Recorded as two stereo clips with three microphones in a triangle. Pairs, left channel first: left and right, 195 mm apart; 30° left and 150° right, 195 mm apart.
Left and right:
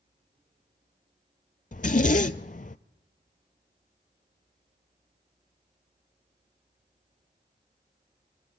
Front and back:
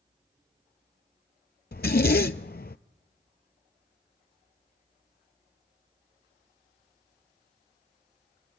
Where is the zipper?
50° left, 0.5 m.